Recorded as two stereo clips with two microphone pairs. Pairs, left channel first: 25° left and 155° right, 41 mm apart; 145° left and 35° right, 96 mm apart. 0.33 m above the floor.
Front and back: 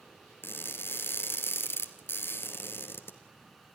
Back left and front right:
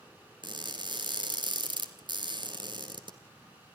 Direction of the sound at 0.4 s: Straight ahead.